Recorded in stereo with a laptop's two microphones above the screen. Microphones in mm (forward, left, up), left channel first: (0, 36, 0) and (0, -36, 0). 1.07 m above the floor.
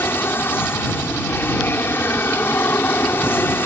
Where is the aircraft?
30° left (ahead or behind).